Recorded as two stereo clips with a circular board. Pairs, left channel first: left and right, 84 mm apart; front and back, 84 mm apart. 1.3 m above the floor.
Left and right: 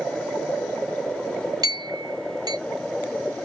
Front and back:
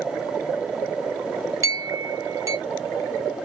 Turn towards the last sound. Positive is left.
turn(degrees=-130)